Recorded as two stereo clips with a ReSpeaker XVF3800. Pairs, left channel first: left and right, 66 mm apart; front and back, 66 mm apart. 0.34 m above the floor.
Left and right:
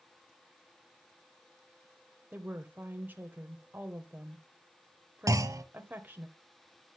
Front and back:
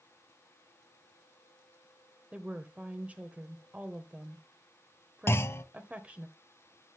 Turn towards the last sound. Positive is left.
turn(degrees=-55)